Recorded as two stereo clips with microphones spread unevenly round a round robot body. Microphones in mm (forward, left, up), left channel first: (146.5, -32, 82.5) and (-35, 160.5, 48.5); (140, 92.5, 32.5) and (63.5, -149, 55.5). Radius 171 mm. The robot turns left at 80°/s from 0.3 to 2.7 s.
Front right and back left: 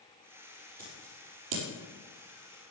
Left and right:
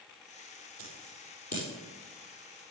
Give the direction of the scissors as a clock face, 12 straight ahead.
5 o'clock.